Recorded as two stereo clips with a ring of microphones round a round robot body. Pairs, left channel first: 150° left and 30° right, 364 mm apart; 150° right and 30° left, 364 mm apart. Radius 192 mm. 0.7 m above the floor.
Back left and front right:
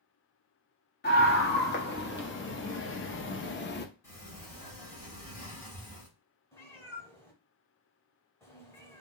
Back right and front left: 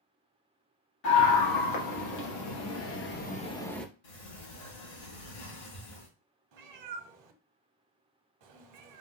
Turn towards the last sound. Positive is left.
turn(degrees=70)